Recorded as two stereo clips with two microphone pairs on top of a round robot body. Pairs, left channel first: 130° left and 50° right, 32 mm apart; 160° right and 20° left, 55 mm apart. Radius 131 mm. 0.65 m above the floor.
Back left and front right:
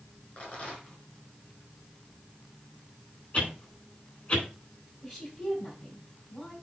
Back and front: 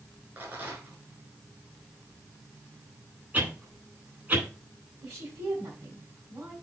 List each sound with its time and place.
0.4 s a rattle: 75° left, 4.5 m
3.3 s a whoosh: 70° left, 3.5 m
5.0 s a woman speaking: 55° left, 5.5 m